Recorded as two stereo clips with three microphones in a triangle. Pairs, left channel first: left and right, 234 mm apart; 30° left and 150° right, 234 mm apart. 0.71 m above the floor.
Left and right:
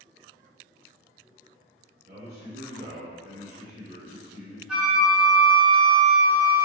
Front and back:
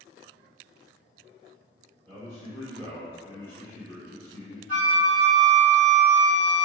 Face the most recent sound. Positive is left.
turn(degrees=-5)